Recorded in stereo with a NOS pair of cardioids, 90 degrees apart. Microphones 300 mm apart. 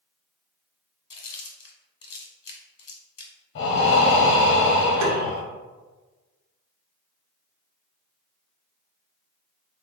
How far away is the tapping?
About 0.8 m.